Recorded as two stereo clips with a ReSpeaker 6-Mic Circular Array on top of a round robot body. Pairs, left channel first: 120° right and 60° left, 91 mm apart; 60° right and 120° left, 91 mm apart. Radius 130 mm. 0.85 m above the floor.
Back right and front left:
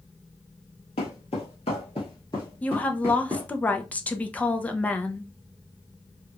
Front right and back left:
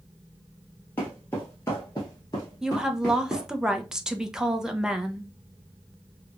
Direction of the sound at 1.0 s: 125° right.